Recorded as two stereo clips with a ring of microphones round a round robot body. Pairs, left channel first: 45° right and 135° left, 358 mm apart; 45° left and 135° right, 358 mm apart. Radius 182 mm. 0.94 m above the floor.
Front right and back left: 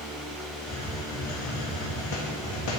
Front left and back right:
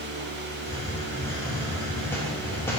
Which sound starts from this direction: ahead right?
A hiss, at 0.6 s.